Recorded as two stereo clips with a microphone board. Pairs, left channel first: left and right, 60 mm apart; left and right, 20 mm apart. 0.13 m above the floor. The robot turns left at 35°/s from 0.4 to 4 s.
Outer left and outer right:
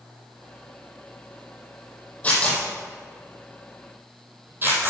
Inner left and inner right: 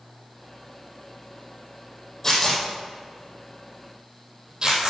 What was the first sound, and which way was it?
Tearing paper, 20° left (ahead or behind).